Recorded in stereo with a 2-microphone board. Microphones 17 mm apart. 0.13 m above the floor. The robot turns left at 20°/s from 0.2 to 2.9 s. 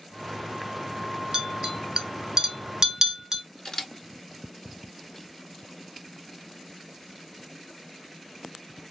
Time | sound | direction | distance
1.3 | a clink | 40° right (ahead or behind) | 1.0 m
3.6 | a camera shutter | 35° left (ahead or behind) | 1.1 m